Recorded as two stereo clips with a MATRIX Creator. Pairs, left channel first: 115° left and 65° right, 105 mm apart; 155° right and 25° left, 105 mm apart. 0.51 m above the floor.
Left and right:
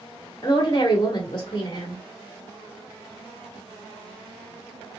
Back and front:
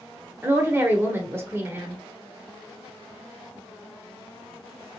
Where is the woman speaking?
85° left, 0.9 m.